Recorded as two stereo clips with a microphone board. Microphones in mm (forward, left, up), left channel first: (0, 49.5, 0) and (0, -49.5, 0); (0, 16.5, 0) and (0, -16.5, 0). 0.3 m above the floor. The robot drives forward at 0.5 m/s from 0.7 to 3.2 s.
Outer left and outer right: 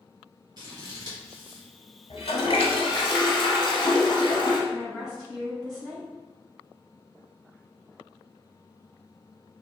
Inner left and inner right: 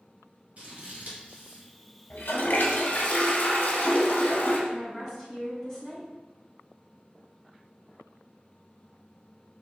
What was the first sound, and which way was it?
Scissors, 45° right (ahead or behind).